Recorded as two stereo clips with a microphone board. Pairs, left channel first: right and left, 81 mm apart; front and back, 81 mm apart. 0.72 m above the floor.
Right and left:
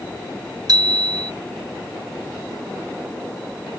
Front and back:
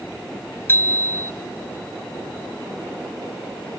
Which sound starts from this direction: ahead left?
A bicycle bell, at 0.7 s.